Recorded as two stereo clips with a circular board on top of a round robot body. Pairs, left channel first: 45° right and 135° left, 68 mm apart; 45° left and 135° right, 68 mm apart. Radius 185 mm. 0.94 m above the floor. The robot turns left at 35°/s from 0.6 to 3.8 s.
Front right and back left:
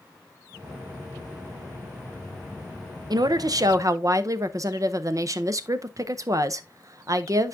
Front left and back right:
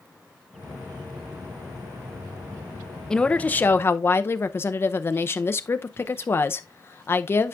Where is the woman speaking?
125° left, 0.7 m; by 7.5 s 100° left, 0.7 m.